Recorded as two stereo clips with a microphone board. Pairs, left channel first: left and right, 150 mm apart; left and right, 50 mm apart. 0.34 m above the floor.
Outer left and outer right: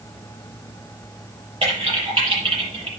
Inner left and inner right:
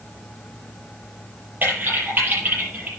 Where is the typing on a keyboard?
40° right (ahead or behind), 6.5 m.